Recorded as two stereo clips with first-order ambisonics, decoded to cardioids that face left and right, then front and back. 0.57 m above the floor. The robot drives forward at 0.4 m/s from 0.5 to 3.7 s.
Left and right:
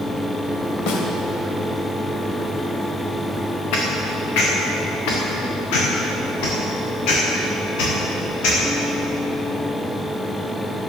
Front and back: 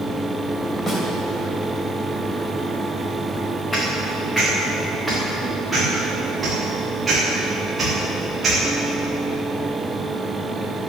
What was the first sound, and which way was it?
A snare drum, 70° left.